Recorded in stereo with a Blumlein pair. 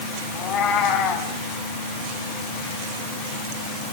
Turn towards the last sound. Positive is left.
turn(degrees=25)